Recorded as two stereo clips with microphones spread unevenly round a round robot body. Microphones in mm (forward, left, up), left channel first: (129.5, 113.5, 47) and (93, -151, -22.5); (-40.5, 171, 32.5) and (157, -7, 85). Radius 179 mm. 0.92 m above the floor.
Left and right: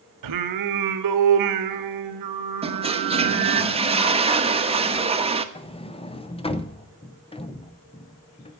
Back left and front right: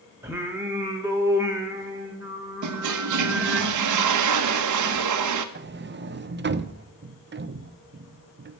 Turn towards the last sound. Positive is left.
turn(degrees=5)